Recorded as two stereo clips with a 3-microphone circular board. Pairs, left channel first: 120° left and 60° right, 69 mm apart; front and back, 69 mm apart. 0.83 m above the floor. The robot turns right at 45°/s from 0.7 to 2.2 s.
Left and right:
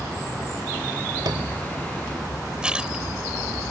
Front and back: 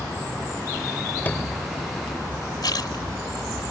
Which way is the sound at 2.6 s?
20° left.